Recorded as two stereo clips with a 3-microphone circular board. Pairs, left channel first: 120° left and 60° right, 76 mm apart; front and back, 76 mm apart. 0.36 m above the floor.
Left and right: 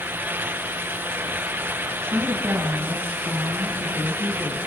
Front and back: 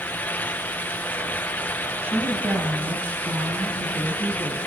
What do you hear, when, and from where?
2.0 s a woman speaking: 115° right, 2.5 m; by 4.6 s 140° right, 5 m